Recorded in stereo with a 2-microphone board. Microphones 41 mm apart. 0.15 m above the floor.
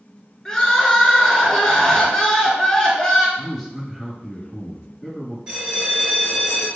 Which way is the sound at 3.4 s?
10° left (ahead or behind).